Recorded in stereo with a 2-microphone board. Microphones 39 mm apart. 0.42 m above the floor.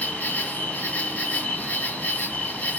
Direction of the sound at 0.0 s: 45° left (ahead or behind).